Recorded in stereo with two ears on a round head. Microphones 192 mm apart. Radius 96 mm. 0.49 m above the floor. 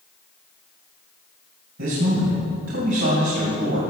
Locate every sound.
1.8 s a man speaking: 65° right (ahead or behind), 2.5 m